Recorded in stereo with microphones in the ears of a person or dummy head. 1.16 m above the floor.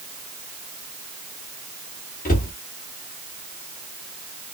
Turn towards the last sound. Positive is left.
turn(degrees=40)  # may be behind; listen again after turning